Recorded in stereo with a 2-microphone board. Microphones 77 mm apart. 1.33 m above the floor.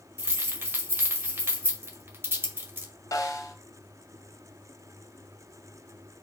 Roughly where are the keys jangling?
Right.